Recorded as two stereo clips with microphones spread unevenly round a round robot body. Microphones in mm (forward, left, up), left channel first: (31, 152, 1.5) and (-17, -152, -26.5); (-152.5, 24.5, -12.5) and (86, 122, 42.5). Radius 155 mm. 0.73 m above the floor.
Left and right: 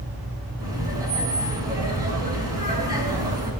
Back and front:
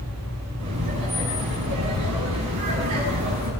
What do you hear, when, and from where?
0.6 s laughter: 20° right, 5 m